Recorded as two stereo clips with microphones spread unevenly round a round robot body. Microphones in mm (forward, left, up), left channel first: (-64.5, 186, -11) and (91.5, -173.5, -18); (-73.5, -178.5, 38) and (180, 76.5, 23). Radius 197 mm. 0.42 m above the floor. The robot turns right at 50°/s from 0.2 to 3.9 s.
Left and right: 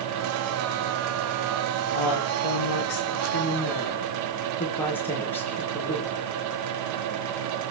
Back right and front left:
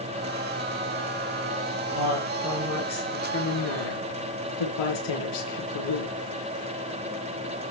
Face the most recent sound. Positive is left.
turn(degrees=-160)